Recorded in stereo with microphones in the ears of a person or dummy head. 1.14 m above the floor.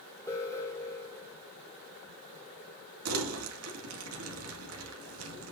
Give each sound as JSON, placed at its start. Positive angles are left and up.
{"t": 0.3, "sound": "an alarm", "side_deg": 15, "distance_m": 2.5}
{"t": 3.0, "sound": "crumpling", "side_deg": -70, "distance_m": 2.0}